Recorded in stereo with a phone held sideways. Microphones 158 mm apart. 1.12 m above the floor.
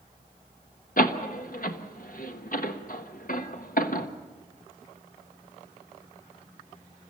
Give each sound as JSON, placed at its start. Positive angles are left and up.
{"t": 1.0, "sound": "a door slam", "side_deg": 60, "distance_m": 1.1}